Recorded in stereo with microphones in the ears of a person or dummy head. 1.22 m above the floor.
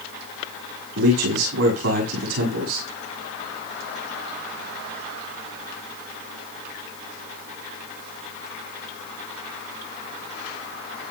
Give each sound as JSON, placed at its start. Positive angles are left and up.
{"t": 0.9, "sound": "a man speaking", "side_deg": -80, "distance_m": 7.5}